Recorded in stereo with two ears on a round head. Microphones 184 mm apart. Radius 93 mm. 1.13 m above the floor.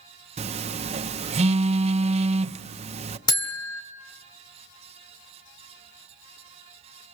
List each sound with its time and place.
0.4 s a phone buzzing: 30° right (ahead or behind), 0.6 m
3.3 s a buzzer: 20° left (ahead or behind), 1.8 m